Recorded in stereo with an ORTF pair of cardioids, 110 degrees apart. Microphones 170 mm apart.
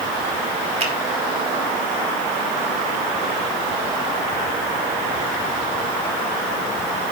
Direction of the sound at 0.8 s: 35° right.